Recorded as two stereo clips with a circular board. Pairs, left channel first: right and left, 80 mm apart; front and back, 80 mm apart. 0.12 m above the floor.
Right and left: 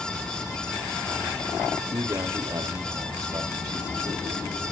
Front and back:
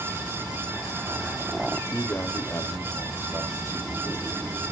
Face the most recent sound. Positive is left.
turn(degrees=55)